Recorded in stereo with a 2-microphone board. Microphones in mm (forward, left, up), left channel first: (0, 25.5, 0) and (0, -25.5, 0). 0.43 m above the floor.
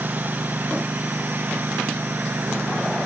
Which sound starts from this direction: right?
A lawn mower, at 0.0 s.